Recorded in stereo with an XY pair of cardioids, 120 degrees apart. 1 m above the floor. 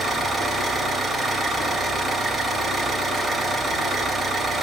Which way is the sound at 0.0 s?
40° right.